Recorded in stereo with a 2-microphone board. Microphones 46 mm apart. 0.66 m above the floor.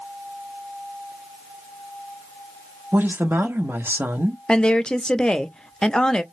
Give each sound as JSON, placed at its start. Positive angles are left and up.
{"t": 2.9, "sound": "a woman speaking", "side_deg": -50, "distance_m": 1.0}
{"t": 4.5, "sound": "a woman speaking", "side_deg": 20, "distance_m": 0.5}